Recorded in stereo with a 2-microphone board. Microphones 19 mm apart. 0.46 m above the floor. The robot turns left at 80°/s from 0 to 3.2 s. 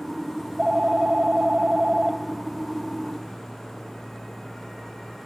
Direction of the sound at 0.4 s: 10° right.